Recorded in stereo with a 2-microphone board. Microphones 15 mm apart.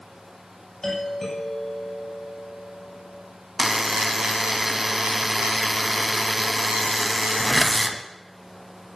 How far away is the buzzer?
About 1.1 m.